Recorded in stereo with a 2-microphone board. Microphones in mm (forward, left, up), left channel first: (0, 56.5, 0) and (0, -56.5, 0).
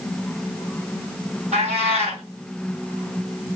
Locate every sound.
1.5 s a cat meowing: 80° right, 2 m